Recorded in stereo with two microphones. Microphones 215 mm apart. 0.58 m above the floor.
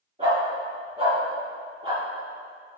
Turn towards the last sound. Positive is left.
turn(degrees=-20)  # may be behind; listen again after turning